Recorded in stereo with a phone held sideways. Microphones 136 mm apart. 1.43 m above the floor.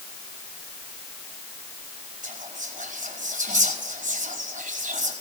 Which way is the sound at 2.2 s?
65° right (ahead or behind).